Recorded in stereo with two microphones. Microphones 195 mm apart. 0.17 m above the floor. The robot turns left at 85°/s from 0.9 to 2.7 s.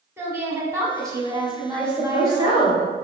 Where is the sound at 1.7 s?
110° left, 2.0 m; by 2.9 s 25° left, 2.0 m.